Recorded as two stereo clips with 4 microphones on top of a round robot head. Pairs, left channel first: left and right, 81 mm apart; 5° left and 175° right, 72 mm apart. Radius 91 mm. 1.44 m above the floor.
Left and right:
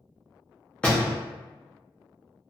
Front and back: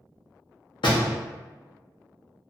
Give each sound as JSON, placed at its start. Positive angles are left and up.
{"t": 0.8, "sound": "a door slam", "azimuth_deg": 15, "distance_m": 0.8}